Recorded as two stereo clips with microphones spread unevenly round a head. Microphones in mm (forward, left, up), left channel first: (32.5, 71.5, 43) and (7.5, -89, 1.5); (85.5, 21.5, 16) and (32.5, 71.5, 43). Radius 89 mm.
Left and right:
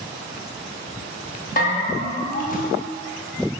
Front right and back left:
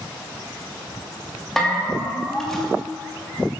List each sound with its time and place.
1.6 s a bell: 45° left, 2.5 m